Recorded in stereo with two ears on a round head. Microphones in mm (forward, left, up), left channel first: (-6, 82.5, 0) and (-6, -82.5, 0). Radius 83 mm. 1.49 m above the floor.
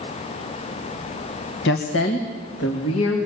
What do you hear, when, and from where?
1.6 s a woman speaking: 70° left (ahead or behind), 1.6 m; by 3.3 s 90° left, 4 m